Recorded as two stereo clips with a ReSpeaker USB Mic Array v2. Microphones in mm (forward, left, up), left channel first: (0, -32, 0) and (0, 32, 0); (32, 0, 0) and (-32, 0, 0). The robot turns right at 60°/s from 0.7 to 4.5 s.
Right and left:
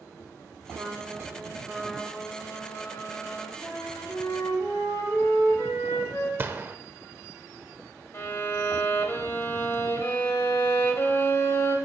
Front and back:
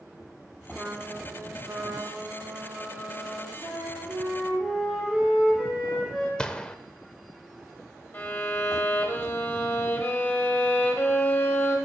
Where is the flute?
160° right, 3 m; by 6.3 s 105° right, 3 m.